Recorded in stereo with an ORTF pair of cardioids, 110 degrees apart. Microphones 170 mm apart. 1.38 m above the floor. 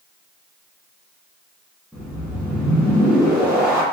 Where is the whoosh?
5° right, 1.4 m.